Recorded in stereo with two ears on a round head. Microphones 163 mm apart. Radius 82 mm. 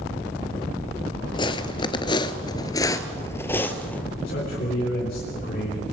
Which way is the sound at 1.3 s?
25° left (ahead or behind).